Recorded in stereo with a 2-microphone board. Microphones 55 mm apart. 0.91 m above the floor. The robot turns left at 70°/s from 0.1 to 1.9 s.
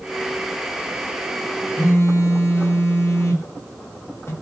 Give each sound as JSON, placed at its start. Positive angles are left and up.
{"t": 1.8, "sound": "a phone buzzing", "side_deg": 55, "distance_m": 0.7}